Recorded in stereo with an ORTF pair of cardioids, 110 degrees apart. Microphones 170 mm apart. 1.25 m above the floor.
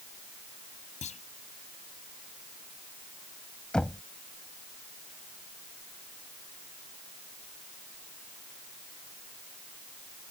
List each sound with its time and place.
1.0 s a clunk: 45° left
3.7 s knocking: 5° left